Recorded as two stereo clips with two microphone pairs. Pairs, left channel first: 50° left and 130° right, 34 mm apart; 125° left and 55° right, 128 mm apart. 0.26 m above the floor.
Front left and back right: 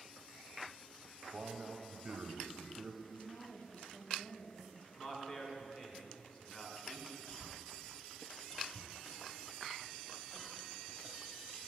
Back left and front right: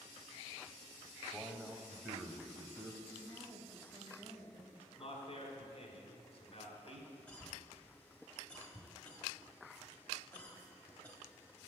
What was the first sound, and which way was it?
A man speaking, 135° right.